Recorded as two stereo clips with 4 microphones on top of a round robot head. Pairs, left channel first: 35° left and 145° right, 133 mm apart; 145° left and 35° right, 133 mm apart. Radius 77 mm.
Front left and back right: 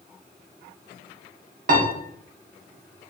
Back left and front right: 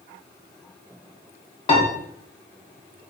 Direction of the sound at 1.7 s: 165° right.